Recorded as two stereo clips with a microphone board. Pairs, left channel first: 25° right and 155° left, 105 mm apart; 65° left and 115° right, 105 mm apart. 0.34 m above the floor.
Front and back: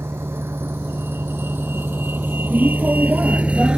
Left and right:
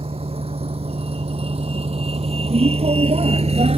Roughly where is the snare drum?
No snare drum in this recording.